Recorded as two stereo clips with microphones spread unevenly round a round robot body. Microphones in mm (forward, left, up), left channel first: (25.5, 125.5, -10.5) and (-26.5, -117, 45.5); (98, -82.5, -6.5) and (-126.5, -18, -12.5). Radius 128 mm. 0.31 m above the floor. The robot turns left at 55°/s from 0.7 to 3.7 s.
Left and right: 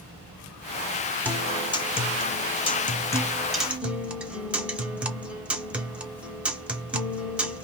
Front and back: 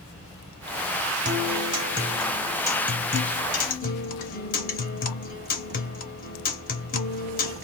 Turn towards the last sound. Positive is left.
turn(degrees=0)